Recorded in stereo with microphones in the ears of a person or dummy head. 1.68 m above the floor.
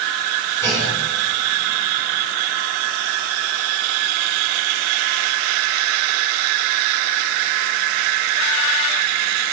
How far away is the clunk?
About 6.5 m.